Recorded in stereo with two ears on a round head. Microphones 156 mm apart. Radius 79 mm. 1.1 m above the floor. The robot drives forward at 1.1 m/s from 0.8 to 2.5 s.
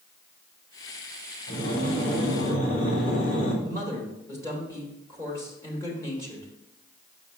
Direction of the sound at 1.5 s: 65° left (ahead or behind).